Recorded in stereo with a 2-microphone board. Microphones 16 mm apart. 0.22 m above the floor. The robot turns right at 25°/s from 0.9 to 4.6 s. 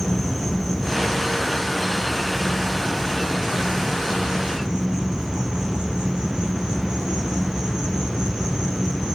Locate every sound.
0.0 s an insect: 175° left, 3 m; by 9.2 s 95° right, 3 m